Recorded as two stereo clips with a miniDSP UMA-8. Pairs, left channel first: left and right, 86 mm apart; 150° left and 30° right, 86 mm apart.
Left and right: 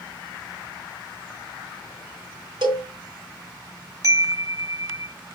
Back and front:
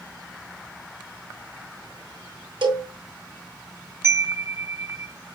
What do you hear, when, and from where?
2.6 s a cowbell: 60° right, 1.8 m
4.0 s a chime: 70° right, 0.7 m